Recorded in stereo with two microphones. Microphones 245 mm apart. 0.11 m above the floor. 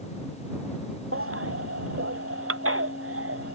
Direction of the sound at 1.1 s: 60° right (ahead or behind).